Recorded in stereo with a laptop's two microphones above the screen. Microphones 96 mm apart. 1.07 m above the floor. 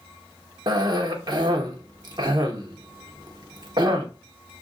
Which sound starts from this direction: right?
A cough, at 0.7 s.